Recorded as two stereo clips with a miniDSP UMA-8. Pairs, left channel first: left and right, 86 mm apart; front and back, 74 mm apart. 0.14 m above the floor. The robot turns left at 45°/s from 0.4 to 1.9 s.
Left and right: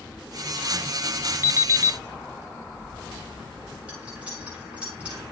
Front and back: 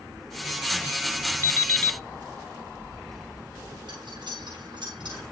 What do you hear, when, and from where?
1.4 s an alarm clock: 50° right, 1.2 m; by 2.0 s 70° right, 1.2 m
3.9 s cutlery clinking: 165° right, 8.5 m